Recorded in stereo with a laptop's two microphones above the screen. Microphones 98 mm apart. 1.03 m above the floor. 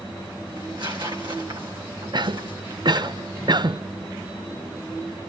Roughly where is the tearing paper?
Right.